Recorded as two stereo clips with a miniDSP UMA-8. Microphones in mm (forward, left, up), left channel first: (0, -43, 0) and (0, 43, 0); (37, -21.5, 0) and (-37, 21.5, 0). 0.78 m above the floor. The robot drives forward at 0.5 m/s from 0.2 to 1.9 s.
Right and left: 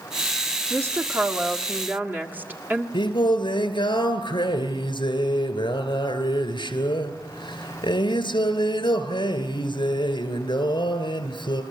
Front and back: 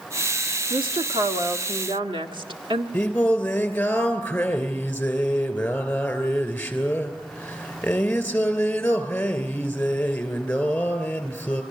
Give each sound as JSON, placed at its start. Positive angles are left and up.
{"t": 0.7, "sound": "a woman speaking", "azimuth_deg": 150, "distance_m": 1.2}
{"t": 2.9, "sound": "singing", "azimuth_deg": -105, "distance_m": 3.0}